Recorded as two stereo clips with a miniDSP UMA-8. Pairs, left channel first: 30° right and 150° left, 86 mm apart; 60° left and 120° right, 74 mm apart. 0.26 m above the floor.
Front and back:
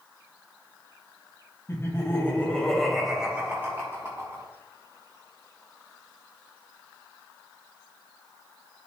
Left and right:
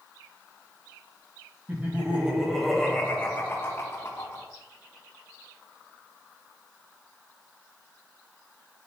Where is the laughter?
65° right, 2 m; by 4.5 s 100° left, 2.5 m.